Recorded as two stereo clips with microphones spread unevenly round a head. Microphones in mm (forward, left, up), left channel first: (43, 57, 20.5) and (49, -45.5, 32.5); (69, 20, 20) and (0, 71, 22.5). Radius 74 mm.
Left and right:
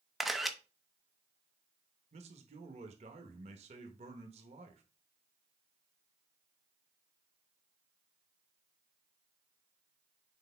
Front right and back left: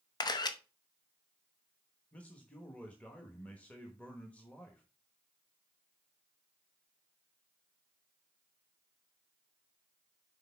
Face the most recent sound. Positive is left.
turn(degrees=-115)